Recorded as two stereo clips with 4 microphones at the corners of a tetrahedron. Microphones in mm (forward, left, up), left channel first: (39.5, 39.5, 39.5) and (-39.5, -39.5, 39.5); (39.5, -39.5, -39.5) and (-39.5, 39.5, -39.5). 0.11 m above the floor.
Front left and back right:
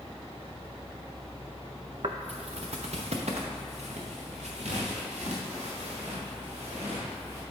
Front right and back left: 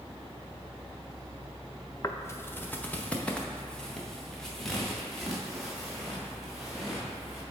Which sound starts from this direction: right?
Footsteps, at 2.0 s.